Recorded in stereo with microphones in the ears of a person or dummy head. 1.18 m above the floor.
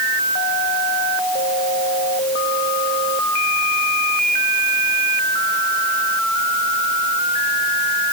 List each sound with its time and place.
Only background noise.